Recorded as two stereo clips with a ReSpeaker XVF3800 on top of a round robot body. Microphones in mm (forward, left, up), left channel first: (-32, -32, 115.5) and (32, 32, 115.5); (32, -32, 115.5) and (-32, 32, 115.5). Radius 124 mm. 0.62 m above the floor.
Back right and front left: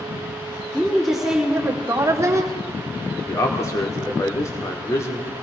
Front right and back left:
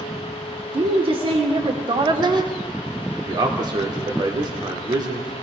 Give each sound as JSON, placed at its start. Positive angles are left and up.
{"t": 0.7, "sound": "a woman speaking", "azimuth_deg": 140, "distance_m": 2.0}
{"t": 3.3, "sound": "a man speaking", "azimuth_deg": 170, "distance_m": 2.0}